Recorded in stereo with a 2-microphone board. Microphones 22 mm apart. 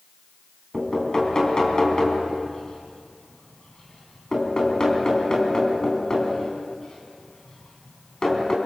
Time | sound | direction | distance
0.7 | knocking | 30° left (ahead or behind) | 4 m